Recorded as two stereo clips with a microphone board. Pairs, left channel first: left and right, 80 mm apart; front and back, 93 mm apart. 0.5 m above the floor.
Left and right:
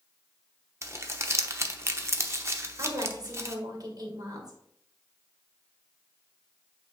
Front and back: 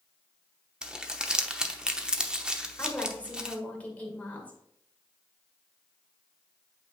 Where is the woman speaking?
70° right, 1.9 m.